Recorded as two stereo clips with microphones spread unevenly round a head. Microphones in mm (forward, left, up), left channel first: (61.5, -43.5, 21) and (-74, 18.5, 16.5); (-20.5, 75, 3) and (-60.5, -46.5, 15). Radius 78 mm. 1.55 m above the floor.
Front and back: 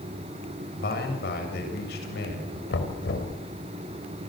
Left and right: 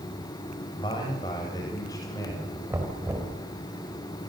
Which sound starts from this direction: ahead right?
Knocking, at 2.7 s.